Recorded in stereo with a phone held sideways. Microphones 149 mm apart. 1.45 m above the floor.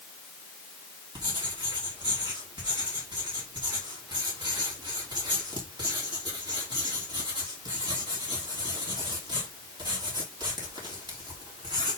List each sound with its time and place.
1.1 s writing: 30° right (ahead or behind), 3 m